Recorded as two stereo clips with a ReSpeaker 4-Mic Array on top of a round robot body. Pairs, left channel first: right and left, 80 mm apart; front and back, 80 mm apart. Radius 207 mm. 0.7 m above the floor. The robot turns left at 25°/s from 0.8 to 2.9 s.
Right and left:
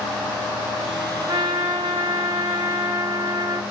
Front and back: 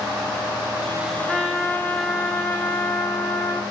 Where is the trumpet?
95° left, 1.9 m; by 3.6 s 55° left, 1.9 m.